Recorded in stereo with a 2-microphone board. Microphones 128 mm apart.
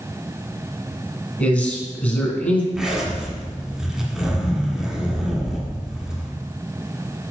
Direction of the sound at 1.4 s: 10° left (ahead or behind).